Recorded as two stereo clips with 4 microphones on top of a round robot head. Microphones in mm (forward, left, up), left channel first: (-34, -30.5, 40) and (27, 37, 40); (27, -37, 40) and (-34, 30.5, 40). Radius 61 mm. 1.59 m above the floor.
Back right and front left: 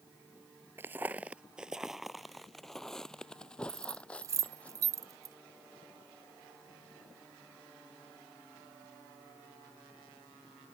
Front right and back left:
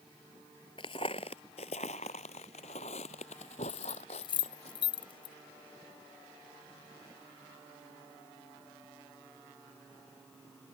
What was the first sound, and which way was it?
Footsteps, 15° right.